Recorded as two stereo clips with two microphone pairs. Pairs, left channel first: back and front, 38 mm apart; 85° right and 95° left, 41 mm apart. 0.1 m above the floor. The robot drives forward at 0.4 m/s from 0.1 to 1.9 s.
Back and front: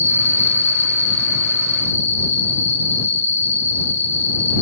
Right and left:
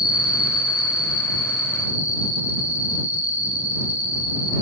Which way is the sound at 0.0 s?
170° left.